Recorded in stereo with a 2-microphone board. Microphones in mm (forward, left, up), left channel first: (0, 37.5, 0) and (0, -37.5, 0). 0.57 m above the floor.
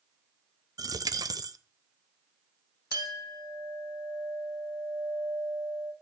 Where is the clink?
65° right (ahead or behind), 2.5 m.